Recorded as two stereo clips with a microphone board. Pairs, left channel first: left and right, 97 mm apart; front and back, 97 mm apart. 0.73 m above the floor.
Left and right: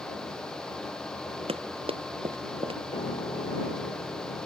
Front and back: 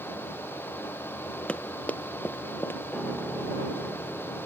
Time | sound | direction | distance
1.5 | running footsteps | 80° right | ?
2.9 | a piano | 90° left | ?